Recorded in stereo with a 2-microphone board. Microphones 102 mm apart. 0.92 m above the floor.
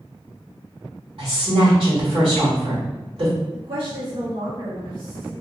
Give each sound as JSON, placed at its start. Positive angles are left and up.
{"t": 1.2, "sound": "a woman speaking", "side_deg": -65, "distance_m": 1.7}
{"t": 3.5, "sound": "a woman speaking", "side_deg": -70, "distance_m": 1.0}